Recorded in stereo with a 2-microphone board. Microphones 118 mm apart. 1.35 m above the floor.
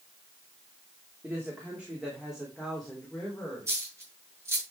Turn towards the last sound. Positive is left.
turn(degrees=-25)  # may be behind; listen again after turning